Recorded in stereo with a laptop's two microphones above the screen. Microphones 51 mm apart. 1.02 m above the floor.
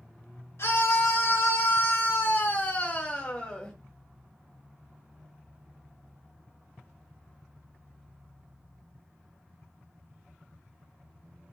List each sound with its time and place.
0.6 s a scream: 65° left (ahead or behind), 1.6 m; by 3.7 s 10° left (ahead or behind), 1.3 m